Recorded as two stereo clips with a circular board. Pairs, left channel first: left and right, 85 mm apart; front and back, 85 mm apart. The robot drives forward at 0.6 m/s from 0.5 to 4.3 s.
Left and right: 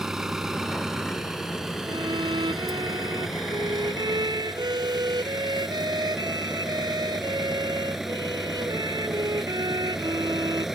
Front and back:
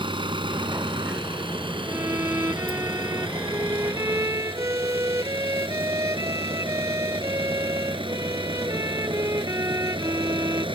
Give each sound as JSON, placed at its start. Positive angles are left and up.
{"t": 0.0, "sound": "an engine running", "azimuth_deg": -175}
{"t": 1.9, "sound": "a violin", "azimuth_deg": -115}